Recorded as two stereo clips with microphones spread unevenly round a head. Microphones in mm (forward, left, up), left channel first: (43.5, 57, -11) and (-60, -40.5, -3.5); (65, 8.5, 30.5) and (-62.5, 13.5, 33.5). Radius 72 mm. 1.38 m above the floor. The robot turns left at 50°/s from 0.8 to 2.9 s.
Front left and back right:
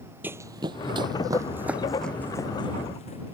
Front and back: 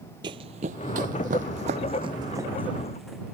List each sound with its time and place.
0.2 s running footsteps: 165° left; by 3.3 s 90° left